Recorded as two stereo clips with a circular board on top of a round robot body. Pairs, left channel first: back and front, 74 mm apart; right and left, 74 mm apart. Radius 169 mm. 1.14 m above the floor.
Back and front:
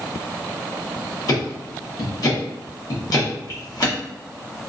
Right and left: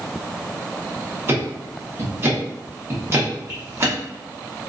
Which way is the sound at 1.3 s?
145° left.